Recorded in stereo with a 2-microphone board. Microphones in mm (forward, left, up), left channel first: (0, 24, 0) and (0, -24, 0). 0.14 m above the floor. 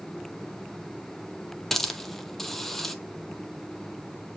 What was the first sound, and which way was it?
A hiss, 5° left (ahead or behind).